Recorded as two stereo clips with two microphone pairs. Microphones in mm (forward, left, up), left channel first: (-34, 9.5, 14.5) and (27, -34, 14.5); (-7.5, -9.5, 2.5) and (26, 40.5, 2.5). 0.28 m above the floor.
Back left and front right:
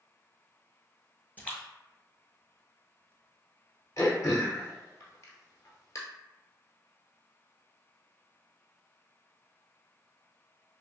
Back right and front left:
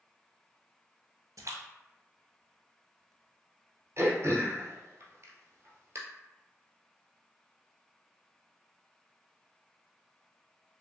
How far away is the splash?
About 0.7 m.